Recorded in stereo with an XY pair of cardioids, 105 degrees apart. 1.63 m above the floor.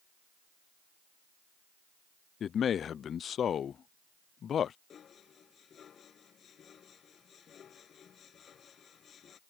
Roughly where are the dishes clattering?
Ahead left.